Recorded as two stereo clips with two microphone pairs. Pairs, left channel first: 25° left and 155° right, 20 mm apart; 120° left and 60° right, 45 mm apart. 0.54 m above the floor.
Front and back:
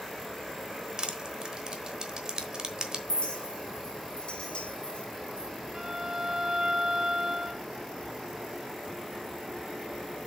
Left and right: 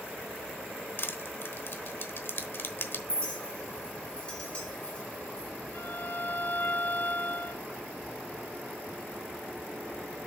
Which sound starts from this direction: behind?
A violin, at 5.7 s.